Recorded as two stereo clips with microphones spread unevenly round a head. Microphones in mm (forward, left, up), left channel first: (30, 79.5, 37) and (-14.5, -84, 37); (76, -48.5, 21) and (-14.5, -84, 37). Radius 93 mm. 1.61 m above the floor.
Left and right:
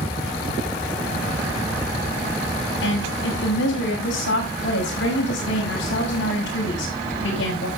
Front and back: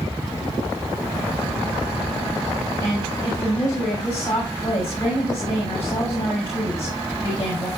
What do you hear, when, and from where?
2.8 s a woman speaking: 95° left, 7.5 m